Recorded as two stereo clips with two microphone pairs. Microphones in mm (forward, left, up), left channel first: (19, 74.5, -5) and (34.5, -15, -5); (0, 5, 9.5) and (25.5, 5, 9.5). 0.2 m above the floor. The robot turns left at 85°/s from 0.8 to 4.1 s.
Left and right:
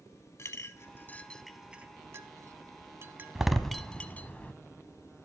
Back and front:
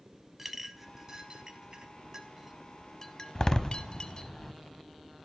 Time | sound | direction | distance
0.4 | a clink | 75° left | 0.7 m
3.4 | a door slam | 160° right | 0.7 m